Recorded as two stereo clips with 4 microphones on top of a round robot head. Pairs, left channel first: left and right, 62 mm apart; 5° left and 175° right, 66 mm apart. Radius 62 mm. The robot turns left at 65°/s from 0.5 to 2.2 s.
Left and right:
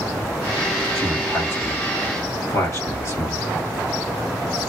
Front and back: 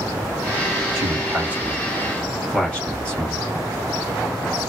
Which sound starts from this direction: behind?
A man speaking, at 0.9 s.